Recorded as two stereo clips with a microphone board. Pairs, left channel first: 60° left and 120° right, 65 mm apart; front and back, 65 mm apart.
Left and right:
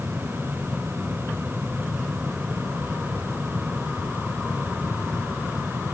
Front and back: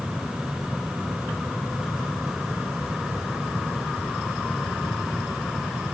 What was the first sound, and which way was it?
Only background noise.